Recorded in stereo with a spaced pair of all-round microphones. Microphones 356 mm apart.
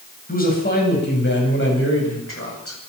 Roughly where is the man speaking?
Left.